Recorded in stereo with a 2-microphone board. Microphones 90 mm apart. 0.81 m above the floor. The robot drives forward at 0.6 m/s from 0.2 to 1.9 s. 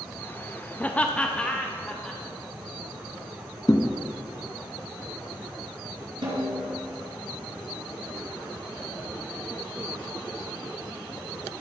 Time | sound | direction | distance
0.8 | laughter | 20° left (ahead or behind) | 0.5 m
3.7 | a thud | 40° left (ahead or behind) | 0.8 m
6.2 | a snare drum | 55° right (ahead or behind) | 4 m